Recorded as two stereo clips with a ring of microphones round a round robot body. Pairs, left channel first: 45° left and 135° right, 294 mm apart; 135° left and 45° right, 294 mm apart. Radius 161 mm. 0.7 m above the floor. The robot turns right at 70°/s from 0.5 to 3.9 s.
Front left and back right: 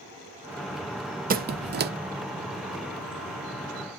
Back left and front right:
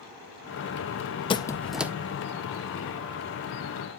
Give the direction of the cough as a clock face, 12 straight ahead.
I don't hear a cough.